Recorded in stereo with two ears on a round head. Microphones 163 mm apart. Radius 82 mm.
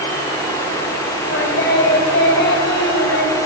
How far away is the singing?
About 2.5 m.